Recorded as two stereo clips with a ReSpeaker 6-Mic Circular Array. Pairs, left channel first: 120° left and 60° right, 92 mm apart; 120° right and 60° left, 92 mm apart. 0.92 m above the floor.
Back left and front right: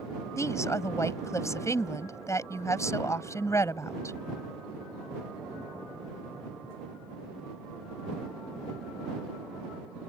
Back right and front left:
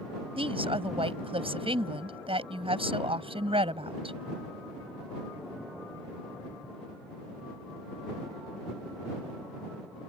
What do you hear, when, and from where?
0.4 s a woman speaking: 65° left